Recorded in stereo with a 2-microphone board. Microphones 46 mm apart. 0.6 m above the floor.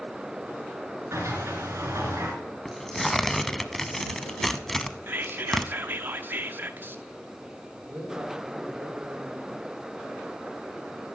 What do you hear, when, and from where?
1.1 s a sliding door: 85° right, 2.5 m
2.6 s tearing paper: 5° left (ahead or behind), 0.6 m
5.1 s whispering: 45° right (ahead or behind), 0.8 m
7.8 s a man speaking: 45° right (ahead or behind), 5.5 m